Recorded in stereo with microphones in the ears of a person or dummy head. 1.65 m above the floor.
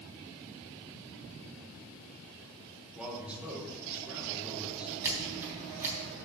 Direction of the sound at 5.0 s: 15° right (ahead or behind).